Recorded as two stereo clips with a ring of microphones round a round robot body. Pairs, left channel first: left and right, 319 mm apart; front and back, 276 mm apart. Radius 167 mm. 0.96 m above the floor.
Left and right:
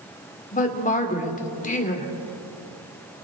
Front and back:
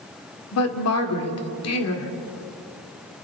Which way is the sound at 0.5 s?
25° left.